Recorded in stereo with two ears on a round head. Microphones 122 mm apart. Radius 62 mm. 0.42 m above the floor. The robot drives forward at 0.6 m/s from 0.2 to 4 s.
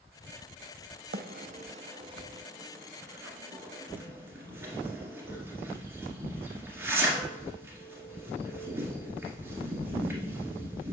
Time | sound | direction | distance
1.1 | a bird | 80° right | 0.5 m